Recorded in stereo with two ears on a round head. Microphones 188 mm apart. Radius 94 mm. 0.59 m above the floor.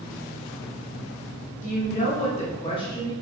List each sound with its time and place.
1.6 s a woman speaking: 35° left (ahead or behind), 1.5 m; by 3.1 s 20° left (ahead or behind), 1.0 m